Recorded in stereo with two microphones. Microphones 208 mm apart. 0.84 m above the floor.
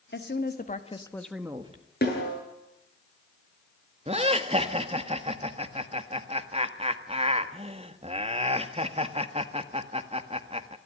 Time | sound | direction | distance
0.1 | a woman speaking | 60° left (ahead or behind) | 2 m
2.0 | a snare drum | 50° left (ahead or behind) | 8.5 m
4.1 | laughter | 30° right (ahead or behind) | 1.4 m